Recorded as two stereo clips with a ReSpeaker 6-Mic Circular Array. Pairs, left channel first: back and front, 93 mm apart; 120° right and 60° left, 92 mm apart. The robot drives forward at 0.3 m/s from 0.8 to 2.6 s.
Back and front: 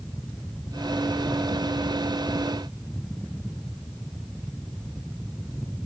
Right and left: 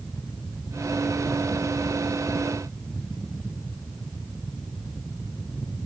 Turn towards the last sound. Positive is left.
No sound to turn to.